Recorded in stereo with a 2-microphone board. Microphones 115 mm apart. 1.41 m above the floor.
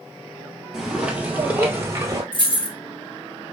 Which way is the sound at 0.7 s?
Centre (ahead or behind).